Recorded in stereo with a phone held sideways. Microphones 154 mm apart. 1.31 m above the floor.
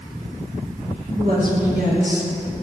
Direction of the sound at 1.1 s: 80° right.